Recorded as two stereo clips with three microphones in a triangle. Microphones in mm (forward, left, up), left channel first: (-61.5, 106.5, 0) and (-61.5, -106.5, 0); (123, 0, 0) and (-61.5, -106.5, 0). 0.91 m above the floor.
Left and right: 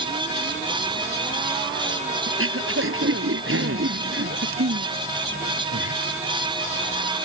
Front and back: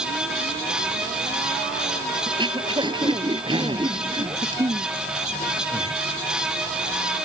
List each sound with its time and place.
2.3 s throat clearing: 80° right